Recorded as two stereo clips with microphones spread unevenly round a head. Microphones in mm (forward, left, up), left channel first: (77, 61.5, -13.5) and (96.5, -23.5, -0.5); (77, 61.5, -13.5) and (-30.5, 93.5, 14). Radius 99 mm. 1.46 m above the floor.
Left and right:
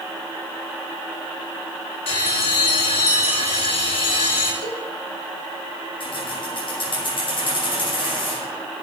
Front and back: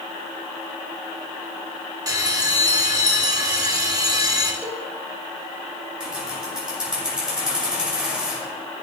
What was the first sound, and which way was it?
A bell, 110° left.